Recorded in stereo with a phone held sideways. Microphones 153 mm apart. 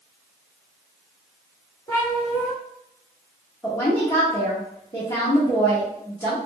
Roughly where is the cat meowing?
Centre.